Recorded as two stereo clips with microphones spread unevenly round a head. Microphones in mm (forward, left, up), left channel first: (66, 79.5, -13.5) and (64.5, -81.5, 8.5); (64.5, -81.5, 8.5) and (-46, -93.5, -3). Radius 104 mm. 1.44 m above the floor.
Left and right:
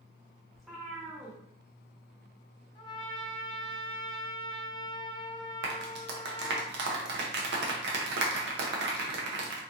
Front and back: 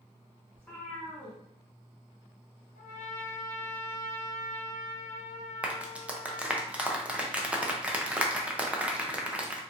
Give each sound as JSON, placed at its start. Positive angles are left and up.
{"t": 0.5, "sound": "a cat meowing", "azimuth_deg": -30, "distance_m": 1.0}
{"t": 2.8, "sound": "a trumpet", "azimuth_deg": 25, "distance_m": 0.8}
{"t": 5.6, "sound": "a clap", "azimuth_deg": -95, "distance_m": 0.7}